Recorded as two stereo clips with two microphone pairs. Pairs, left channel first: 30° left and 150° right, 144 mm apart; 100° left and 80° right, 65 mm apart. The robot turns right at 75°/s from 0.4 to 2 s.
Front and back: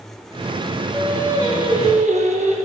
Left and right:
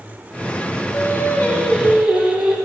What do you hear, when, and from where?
0.9 s singing: 115° left, 3 m; by 2.5 s 165° right, 3 m